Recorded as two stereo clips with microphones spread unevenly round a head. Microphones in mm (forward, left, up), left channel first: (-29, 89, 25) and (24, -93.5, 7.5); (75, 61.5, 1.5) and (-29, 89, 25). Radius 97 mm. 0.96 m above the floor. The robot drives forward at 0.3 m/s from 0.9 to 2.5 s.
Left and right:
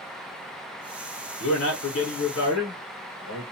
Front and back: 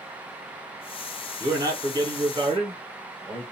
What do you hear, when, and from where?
1.4 s a man speaking: 105° left, 1.1 m; by 3.4 s 125° left, 1.2 m